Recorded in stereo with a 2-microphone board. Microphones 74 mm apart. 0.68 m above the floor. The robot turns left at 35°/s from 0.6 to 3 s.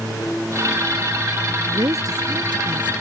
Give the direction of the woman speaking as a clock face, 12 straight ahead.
1 o'clock.